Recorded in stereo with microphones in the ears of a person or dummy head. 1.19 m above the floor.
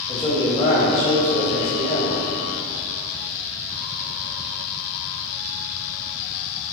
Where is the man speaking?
15° left (ahead or behind), 1.9 m; by 2.2 s 65° left (ahead or behind), 1.6 m.